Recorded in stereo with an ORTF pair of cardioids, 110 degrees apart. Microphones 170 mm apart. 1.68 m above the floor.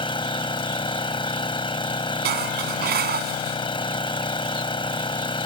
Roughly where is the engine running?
Ahead left.